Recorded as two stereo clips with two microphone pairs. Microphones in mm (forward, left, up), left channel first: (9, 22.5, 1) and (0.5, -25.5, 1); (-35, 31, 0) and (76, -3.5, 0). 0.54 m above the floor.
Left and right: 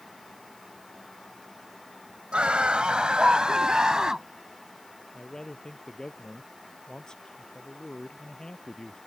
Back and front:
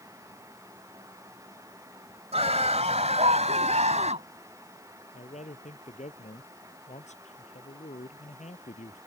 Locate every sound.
2.3 s a scream: 30° right; by 4.3 s 20° right
5.1 s a man speaking: 160° left